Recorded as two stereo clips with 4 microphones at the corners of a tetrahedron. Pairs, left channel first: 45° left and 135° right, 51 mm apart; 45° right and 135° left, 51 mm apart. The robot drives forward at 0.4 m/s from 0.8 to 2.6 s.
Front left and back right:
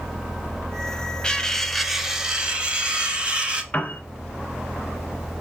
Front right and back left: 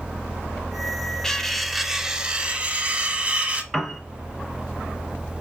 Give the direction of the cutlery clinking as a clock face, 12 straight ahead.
12 o'clock.